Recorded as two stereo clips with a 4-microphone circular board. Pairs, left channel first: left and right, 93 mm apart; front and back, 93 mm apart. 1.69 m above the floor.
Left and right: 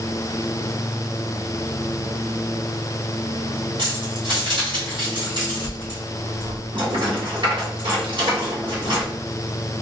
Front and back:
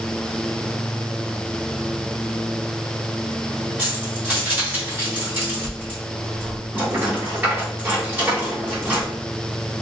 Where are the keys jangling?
110° right, 1.8 m.